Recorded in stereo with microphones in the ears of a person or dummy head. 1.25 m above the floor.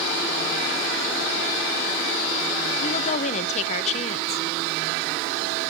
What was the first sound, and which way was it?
A woman speaking, 40° left (ahead or behind).